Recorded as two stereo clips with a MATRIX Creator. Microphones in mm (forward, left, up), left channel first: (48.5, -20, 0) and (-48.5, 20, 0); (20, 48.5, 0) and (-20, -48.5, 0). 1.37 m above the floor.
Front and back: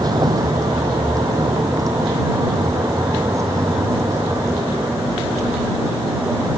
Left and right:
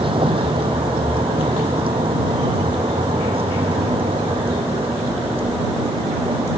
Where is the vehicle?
150° right; by 6.6 s 140° right.